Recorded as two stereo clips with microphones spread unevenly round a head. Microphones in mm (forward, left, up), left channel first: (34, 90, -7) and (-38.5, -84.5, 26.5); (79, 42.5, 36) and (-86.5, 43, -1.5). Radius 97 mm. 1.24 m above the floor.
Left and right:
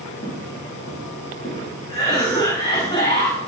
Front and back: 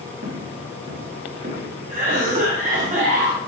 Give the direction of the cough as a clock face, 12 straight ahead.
7 o'clock.